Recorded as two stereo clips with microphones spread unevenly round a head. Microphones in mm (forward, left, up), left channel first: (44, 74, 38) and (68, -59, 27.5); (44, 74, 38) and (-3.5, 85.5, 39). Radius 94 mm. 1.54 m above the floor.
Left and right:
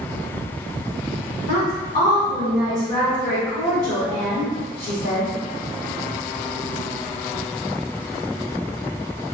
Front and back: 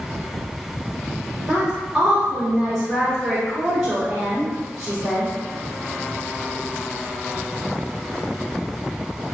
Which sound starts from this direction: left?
A woman speaking, at 1.5 s.